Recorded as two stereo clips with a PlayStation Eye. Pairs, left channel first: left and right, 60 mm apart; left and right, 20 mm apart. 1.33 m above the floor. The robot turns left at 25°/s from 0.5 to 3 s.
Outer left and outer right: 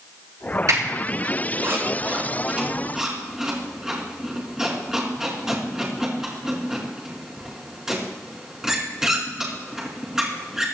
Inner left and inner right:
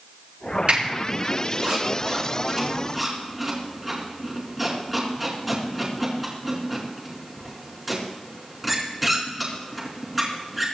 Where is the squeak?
65° right (ahead or behind), 4 m; by 10.7 s 10° right (ahead or behind), 4 m.